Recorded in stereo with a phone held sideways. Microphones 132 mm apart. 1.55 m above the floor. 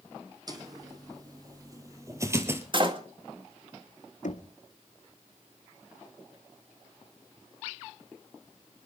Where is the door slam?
40° right (ahead or behind), 1.8 m.